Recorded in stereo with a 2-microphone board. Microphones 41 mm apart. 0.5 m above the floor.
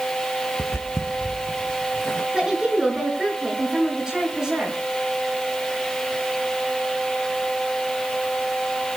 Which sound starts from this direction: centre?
A woman speaking, at 2.3 s.